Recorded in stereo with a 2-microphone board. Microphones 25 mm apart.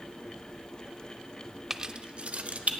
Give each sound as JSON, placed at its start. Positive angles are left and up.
{"t": 1.7, "sound": "keys jangling", "side_deg": -15, "distance_m": 0.5}